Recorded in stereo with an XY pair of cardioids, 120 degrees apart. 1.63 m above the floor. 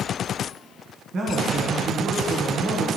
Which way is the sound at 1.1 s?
55° right.